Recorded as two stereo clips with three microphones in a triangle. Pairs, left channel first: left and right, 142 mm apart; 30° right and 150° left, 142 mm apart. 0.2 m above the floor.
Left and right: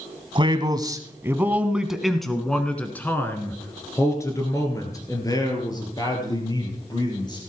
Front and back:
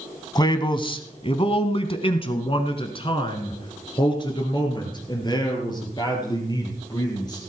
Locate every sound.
0.3 s a man speaking: 70° right, 1.2 m; by 7.4 s 30° left, 4 m